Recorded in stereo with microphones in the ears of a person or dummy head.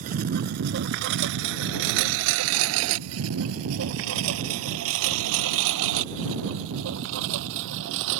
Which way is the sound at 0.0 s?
45° right (ahead or behind).